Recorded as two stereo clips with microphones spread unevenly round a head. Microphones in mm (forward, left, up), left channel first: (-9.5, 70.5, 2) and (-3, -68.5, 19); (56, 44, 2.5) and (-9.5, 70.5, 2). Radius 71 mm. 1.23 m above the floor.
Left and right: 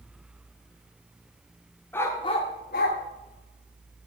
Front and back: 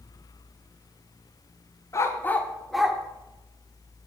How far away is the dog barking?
About 1.3 m.